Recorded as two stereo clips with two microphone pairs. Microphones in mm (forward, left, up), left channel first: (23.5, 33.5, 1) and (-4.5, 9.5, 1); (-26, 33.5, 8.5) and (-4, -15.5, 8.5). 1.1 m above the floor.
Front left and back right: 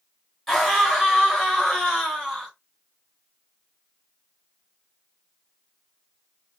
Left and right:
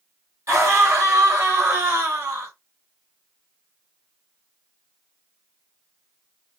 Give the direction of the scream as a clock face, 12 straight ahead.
1 o'clock.